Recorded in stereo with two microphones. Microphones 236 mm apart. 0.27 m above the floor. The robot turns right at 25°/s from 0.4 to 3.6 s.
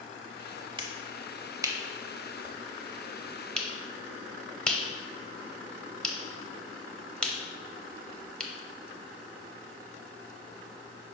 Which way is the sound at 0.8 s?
20° right (ahead or behind).